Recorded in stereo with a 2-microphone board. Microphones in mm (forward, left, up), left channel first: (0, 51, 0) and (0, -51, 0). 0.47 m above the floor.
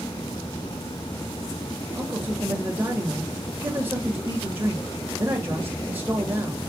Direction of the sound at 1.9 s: 20° right (ahead or behind).